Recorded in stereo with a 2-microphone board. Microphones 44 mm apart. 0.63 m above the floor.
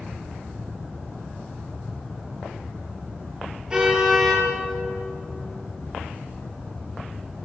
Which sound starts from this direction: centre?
A car horn, at 3.7 s.